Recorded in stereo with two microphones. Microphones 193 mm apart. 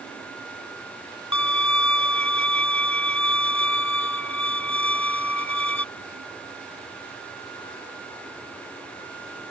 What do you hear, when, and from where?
1.3 s a violin: 85° left